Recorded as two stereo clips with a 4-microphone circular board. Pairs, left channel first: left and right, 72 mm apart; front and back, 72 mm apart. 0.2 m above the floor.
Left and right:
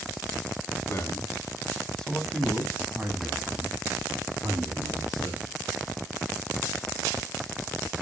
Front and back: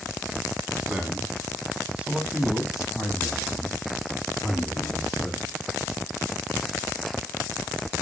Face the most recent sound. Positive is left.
turn(degrees=-80)